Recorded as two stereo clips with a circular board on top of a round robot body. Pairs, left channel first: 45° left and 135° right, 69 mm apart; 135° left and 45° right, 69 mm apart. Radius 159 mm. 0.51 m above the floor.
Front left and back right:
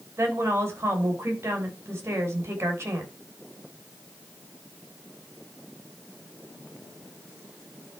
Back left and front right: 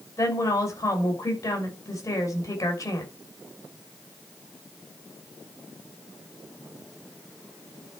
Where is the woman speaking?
175° left, 5.5 m.